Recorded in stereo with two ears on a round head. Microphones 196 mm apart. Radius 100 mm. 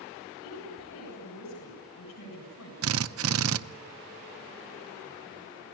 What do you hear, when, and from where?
0.4 s a woman speaking: 85° left, 7.5 m
2.8 s a drill: 65° right (ahead or behind), 0.7 m